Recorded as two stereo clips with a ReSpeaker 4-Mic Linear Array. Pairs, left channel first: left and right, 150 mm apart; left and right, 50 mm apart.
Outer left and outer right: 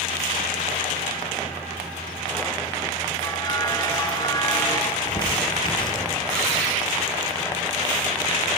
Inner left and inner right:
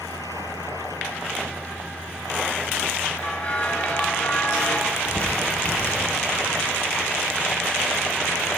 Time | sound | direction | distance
3.1 | a bell | 25° left (ahead or behind) | 2.5 m
4.9 | crumpling | 30° left (ahead or behind) | 6.5 m